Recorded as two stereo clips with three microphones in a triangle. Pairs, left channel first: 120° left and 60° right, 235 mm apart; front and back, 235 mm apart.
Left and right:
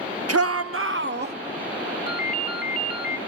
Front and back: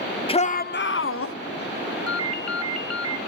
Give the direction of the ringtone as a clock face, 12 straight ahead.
6 o'clock.